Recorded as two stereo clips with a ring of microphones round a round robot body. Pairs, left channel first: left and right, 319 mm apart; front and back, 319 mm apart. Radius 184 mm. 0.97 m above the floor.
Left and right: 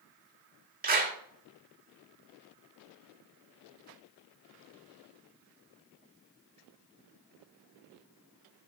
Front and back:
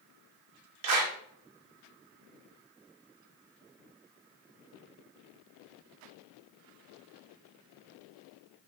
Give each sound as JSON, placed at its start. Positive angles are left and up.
{"t": 0.8, "sound": "a clap", "azimuth_deg": -150, "distance_m": 1.7}